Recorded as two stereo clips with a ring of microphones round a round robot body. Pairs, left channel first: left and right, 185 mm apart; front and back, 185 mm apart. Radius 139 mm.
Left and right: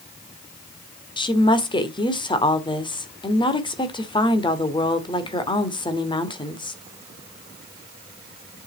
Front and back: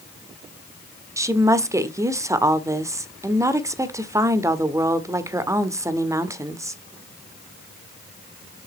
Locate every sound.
1.2 s a woman speaking: 120° left, 1.2 m